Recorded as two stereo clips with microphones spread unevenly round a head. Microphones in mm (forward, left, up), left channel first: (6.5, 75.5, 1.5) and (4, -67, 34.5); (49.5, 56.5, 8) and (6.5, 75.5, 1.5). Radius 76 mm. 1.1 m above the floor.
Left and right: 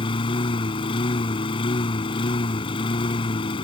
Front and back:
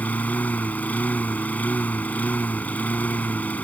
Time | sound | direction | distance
0.0 | a lawn mower | 30° left | ?